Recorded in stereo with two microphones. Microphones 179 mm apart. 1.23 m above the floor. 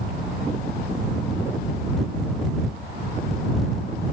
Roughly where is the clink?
I don't hear a clink.